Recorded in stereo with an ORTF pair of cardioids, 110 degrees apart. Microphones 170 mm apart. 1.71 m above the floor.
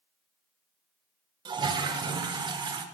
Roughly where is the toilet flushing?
Ahead right.